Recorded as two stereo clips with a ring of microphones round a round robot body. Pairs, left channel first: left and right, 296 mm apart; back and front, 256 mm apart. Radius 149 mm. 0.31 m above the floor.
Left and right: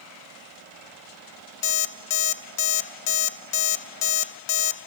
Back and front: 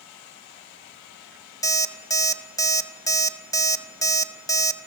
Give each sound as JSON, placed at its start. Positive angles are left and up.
{"t": 1.6, "sound": "an alarm clock", "azimuth_deg": 105, "distance_m": 0.9}